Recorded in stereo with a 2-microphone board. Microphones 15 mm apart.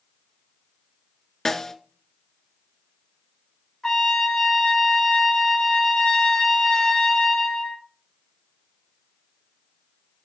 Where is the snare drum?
25° left (ahead or behind), 0.7 m.